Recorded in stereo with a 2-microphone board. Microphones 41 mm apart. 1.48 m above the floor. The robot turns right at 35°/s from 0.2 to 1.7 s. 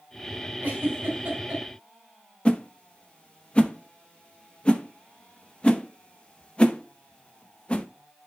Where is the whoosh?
25° left (ahead or behind), 0.9 m.